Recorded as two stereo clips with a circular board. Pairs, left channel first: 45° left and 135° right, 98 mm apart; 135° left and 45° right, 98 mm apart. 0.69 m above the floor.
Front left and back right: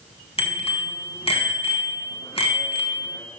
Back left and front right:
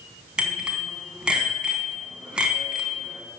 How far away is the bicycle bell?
About 3.5 m.